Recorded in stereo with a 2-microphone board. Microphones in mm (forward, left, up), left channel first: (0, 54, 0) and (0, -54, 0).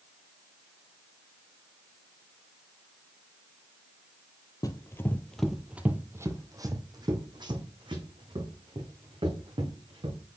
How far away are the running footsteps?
About 0.7 m.